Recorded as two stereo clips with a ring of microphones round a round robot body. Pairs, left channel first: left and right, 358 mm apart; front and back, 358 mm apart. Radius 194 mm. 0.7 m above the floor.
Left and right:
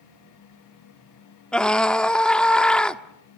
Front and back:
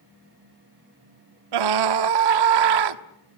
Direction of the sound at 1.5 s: Straight behind.